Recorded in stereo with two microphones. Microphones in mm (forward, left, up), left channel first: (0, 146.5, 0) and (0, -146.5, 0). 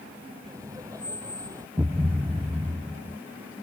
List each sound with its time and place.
0.4 s laughter: 10° right (ahead or behind)
1.8 s a thud: 10° right (ahead or behind)